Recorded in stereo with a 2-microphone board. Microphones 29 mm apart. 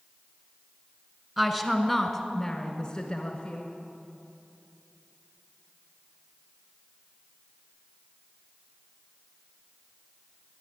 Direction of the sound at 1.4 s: 10° right (ahead or behind).